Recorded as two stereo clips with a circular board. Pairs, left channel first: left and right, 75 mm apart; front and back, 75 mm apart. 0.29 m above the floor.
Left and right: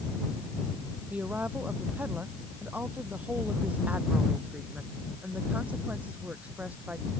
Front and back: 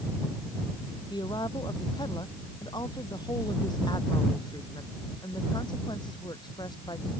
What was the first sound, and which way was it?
A woman speaking, 20° right.